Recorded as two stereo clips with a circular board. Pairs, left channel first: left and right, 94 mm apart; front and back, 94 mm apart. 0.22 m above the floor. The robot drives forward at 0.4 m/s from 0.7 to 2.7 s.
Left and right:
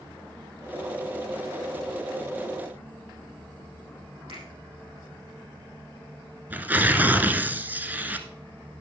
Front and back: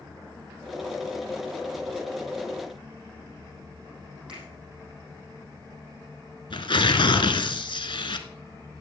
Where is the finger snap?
100° right, 6.5 m.